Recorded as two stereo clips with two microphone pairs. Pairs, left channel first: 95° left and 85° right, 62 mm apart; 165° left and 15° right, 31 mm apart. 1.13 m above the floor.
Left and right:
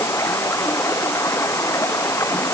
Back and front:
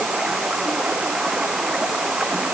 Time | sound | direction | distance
0.0 | running water | 55° left | ?